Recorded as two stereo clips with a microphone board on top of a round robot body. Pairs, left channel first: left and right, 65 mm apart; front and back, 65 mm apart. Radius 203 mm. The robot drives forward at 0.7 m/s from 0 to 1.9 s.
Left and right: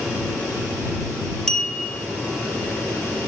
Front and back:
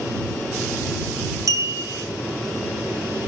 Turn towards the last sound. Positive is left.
turn(degrees=170)